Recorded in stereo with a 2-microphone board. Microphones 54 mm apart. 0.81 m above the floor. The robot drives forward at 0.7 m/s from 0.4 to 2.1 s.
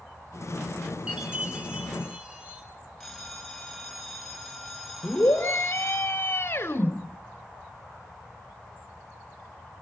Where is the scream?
45° left (ahead or behind), 1.9 m.